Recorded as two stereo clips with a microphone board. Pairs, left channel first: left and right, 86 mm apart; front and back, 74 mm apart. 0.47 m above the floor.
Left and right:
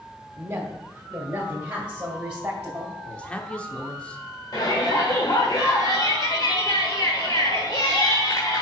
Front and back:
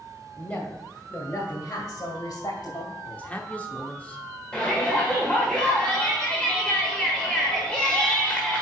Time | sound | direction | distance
0.4 | a woman speaking | 50° right | 1.3 m
3.0 | a man speaking | 35° left | 0.9 m
4.5 | a shout | 70° left | 1.5 m